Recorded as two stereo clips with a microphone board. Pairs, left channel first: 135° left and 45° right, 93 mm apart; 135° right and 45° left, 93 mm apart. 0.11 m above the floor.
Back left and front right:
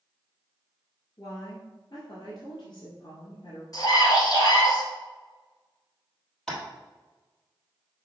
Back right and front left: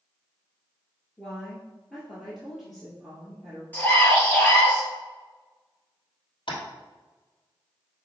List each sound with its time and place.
1.2 s a woman speaking: 135° left, 1.6 m
3.7 s a scream: 160° left, 2 m
6.5 s tapping: 140° right, 2.5 m